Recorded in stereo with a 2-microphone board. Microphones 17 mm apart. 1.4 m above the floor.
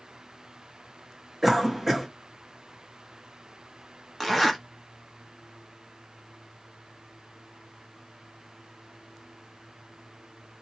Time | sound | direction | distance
1.4 | a cough | centre (ahead or behind) | 1.8 m
4.2 | a zipper | 10° left (ahead or behind) | 1.3 m